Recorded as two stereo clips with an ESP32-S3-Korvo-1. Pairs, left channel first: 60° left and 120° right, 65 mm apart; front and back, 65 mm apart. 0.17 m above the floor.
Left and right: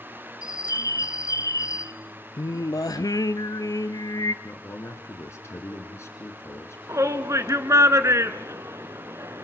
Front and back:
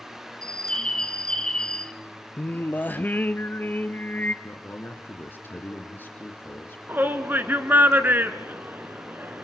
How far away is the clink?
No clink in this recording.